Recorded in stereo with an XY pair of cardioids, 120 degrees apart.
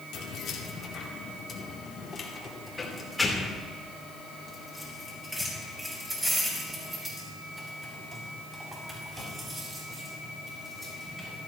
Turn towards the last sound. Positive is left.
turn(degrees=-25)